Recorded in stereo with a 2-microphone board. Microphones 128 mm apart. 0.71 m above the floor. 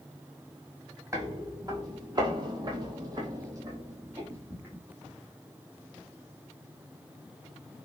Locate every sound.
1.1 s footsteps: 25° right (ahead or behind), 1.2 m; by 4.8 s 15° right (ahead or behind), 1.5 m